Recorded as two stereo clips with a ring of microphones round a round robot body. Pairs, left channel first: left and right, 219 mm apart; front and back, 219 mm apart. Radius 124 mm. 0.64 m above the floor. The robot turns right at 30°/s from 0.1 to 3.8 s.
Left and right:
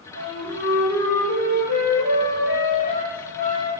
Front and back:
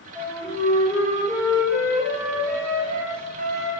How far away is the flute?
About 1.5 m.